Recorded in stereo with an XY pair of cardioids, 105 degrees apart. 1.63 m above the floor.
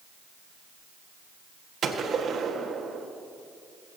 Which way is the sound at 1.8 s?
50° right.